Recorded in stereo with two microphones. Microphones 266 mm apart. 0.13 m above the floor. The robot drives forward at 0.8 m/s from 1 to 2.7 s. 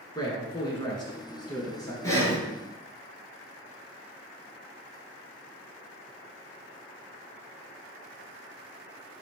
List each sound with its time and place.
0.1 s a man speaking: 15° left (ahead or behind), 1.1 m
2.0 s breathing: 10° left (ahead or behind), 1.2 m